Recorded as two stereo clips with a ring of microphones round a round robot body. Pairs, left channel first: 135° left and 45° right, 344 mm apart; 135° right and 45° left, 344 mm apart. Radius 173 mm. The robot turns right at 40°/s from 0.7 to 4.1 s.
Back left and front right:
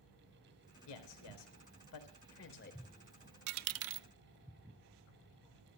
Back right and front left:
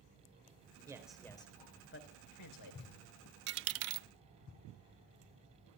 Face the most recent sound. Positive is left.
turn(degrees=15)